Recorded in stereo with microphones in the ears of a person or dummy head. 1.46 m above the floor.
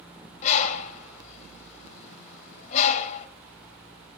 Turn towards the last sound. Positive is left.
turn(degrees=40)  # may be behind; listen again after turning